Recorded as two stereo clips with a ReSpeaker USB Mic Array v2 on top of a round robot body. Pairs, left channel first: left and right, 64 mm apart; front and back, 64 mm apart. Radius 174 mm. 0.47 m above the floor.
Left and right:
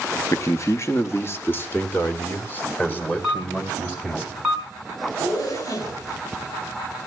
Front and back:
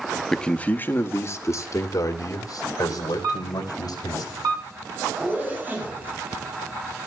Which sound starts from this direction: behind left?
A zipper, at 5.2 s.